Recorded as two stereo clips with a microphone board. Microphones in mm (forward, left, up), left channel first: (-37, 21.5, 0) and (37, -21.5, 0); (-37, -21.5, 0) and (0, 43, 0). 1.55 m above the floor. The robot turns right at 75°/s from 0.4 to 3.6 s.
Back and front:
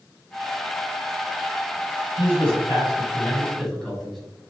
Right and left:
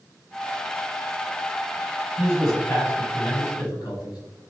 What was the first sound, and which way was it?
A man speaking, 130° left.